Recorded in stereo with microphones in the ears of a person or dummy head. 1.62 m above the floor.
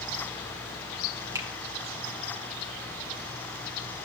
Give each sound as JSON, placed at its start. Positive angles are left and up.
{"t": 1.4, "sound": "a finger snap", "side_deg": -10, "distance_m": 1.1}